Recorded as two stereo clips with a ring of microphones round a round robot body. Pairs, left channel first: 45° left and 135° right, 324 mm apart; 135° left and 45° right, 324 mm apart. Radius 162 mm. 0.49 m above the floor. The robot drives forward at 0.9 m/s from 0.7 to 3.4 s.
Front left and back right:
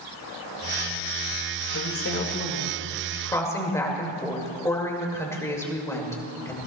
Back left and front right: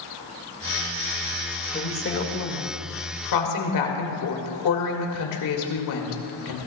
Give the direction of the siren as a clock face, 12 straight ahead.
I don't hear a siren.